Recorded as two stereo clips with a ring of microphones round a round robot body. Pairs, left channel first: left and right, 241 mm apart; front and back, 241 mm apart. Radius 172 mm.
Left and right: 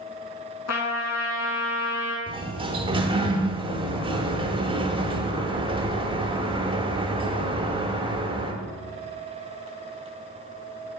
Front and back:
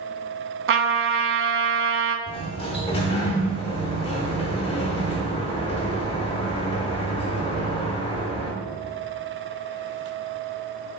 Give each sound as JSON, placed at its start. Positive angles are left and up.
{"t": 0.7, "sound": "a trumpet", "azimuth_deg": 140, "distance_m": 0.9}
{"t": 2.3, "sound": "a sliding door", "azimuth_deg": -45, "distance_m": 1.0}